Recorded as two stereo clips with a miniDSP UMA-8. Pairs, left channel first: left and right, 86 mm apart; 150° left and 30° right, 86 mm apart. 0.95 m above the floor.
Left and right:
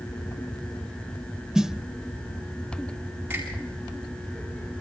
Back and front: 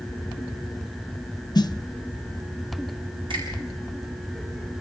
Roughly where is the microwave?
I don't hear a microwave.